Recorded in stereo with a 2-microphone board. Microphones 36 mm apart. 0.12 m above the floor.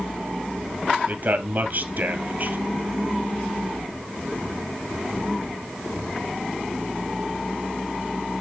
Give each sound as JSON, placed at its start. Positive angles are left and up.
{"t": 1.1, "sound": "a man speaking", "side_deg": -50, "distance_m": 2.5}